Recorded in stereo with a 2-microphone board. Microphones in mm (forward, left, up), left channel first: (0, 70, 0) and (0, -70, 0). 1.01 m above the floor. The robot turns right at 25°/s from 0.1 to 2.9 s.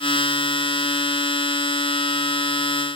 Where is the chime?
I don't hear a chime.